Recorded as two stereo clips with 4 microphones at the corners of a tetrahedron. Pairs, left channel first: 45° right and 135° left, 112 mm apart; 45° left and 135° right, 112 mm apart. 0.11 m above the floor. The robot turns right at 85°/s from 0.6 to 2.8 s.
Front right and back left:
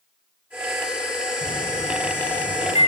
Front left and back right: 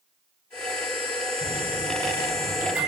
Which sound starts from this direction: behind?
A microwave, at 1.4 s.